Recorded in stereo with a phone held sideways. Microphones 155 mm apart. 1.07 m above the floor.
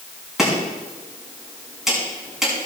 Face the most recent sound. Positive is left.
turn(degrees=-5)  # may be behind; listen again after turning